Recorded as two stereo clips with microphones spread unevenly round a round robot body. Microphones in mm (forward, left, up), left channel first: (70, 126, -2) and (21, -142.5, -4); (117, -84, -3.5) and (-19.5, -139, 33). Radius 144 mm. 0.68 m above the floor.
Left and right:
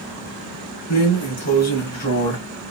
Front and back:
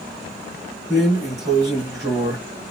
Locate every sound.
0.9 s a drawer: 120° left, 1.9 m